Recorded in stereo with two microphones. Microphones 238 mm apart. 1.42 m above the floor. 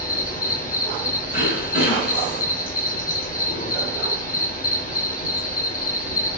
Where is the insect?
35° left (ahead or behind), 0.9 m.